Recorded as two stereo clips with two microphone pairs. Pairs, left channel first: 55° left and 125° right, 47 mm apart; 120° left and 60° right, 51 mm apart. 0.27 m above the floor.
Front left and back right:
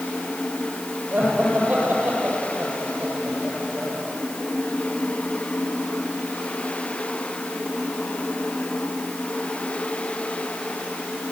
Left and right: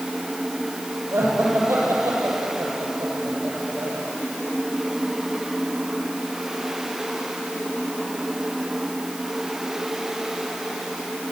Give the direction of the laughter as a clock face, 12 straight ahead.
3 o'clock.